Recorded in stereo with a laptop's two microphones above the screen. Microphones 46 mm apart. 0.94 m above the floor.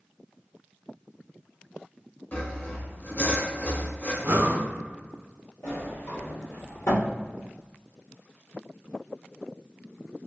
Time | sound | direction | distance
2.3 | sawing | 45° left (ahead or behind) | 0.8 m
4.2 | breathing | 60° right (ahead or behind) | 0.9 m
5.6 | a sliding door | 75° left (ahead or behind) | 1.2 m